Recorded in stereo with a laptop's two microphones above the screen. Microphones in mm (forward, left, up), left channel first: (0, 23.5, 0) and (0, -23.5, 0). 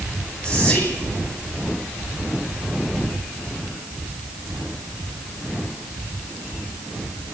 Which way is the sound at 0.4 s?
20° left (ahead or behind).